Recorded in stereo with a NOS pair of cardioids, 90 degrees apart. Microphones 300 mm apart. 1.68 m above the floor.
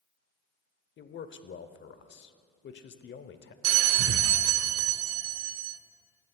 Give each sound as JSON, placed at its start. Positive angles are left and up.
{"t": 1.0, "sound": "a man speaking", "azimuth_deg": 40, "distance_m": 0.7}
{"t": 3.6, "sound": "a bell", "azimuth_deg": -55, "distance_m": 0.6}